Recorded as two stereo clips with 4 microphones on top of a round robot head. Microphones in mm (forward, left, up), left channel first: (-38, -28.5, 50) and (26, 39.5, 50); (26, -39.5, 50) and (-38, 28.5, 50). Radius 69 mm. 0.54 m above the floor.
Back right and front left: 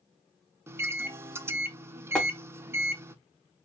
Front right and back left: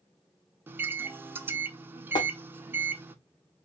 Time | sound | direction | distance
0.7 | a microwave | 85° left | 0.6 m
2.1 | tapping | 55° right | 1.1 m